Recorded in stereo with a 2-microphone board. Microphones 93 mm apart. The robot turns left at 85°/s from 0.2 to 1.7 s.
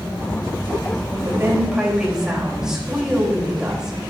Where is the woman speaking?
135° right, 3.5 m; by 4.0 s 175° right, 3.5 m.